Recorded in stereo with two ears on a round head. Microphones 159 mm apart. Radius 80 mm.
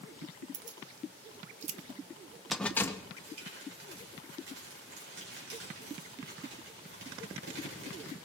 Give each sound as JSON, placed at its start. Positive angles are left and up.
{"t": 0.5, "sound": "keys jangling", "side_deg": -75, "distance_m": 1.1}
{"t": 3.2, "sound": "crumpling", "side_deg": -80, "distance_m": 5.0}